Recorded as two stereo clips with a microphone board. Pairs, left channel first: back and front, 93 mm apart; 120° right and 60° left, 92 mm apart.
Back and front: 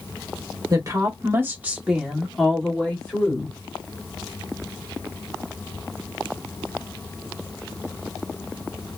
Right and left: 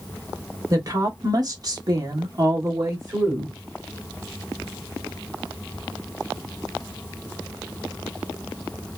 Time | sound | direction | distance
0.7 | a woman speaking | 25° left | 1.1 m